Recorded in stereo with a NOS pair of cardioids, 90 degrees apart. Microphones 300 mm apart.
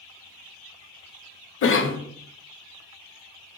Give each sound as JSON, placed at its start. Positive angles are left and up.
{"t": 1.6, "sound": "a cough", "azimuth_deg": 45, "distance_m": 0.6}